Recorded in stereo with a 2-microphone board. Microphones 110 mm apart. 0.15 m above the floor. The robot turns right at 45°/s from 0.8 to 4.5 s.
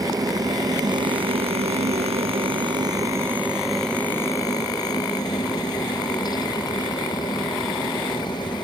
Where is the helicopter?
35° right (ahead or behind); by 8.6 s 40° left (ahead or behind).